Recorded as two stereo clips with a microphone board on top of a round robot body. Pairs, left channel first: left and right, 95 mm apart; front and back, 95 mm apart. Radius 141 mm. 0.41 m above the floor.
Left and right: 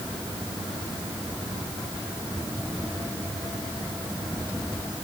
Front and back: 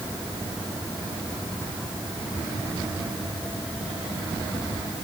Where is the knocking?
I don't hear knocking.